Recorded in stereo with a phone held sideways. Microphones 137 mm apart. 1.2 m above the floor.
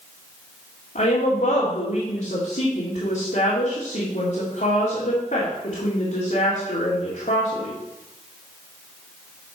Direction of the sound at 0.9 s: 85° left.